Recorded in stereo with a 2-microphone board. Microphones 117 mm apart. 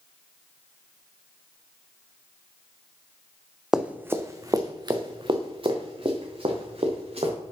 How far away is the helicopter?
No helicopter in this recording.